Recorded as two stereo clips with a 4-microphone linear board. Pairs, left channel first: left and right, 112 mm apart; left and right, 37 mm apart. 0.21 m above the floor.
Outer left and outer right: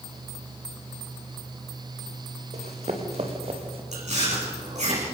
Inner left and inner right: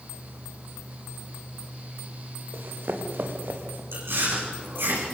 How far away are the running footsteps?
About 4 m.